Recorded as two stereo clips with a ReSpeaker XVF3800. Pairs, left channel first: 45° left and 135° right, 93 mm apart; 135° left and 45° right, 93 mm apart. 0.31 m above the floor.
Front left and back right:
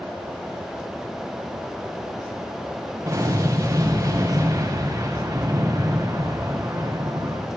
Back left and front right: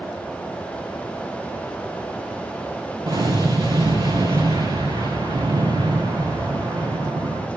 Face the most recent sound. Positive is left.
turn(degrees=-80)